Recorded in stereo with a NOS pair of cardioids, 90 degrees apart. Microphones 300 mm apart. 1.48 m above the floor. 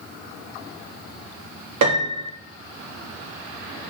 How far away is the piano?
About 3.5 m.